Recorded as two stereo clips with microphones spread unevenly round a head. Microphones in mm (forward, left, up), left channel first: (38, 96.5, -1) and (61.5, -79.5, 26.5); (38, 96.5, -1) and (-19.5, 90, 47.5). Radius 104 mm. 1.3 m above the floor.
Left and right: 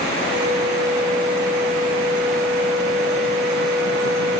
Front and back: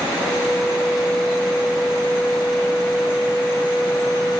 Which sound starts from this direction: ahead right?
A flute, at 0.2 s.